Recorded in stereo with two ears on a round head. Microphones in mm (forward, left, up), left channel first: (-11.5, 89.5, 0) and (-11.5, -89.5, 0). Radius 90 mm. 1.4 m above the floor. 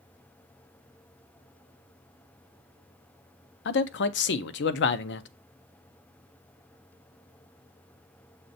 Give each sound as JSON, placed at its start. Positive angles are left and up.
{"t": 3.6, "sound": "a man speaking", "side_deg": 60, "distance_m": 0.6}